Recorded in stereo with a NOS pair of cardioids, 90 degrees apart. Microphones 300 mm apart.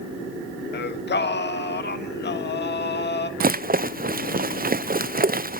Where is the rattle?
30° right, 0.6 m.